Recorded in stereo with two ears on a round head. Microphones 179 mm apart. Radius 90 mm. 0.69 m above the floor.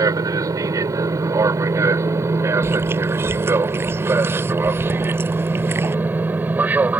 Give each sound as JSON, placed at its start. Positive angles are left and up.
{"t": 0.0, "sound": "an aircraft", "side_deg": -20}
{"t": 2.6, "sound": "chewing", "side_deg": -15}